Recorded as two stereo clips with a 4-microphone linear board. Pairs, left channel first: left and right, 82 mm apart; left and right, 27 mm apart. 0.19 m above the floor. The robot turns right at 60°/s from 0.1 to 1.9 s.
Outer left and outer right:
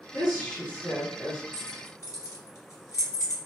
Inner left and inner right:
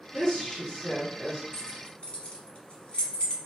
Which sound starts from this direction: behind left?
A woman speaking, at 0.1 s.